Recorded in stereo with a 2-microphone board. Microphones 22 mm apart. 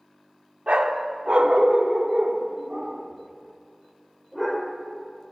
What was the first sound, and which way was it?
A dog barking, 65° right (ahead or behind).